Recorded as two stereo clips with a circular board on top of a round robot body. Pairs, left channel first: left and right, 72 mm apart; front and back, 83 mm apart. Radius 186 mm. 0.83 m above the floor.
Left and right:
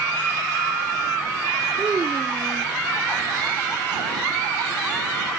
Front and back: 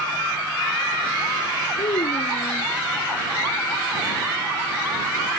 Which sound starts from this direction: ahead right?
A child speaking, at 1.8 s.